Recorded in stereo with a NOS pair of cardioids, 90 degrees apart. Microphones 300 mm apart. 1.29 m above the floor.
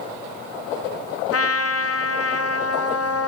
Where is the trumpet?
55° left, 0.9 m.